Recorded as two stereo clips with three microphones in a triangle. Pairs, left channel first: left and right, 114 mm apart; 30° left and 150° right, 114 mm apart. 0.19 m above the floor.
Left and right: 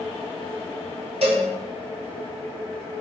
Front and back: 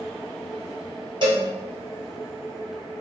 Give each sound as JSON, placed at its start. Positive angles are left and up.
{"t": 1.2, "sound": "a cowbell", "azimuth_deg": -110, "distance_m": 1.2}